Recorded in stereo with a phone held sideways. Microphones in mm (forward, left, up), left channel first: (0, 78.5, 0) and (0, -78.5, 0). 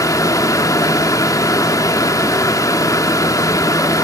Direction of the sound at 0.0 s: 20° left (ahead or behind).